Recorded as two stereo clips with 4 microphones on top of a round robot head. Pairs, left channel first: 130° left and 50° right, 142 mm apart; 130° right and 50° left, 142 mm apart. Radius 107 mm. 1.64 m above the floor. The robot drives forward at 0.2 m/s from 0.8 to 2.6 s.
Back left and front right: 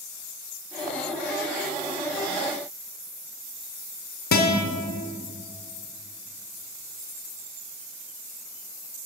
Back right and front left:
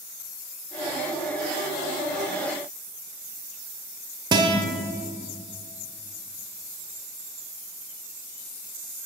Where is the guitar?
110° left, 0.8 m.